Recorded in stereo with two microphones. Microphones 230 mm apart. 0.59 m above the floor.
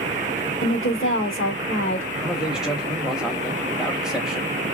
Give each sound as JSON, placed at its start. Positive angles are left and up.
{"t": 0.6, "sound": "a woman speaking", "side_deg": 60, "distance_m": 1.3}
{"t": 2.2, "sound": "a man speaking", "side_deg": -5, "distance_m": 0.9}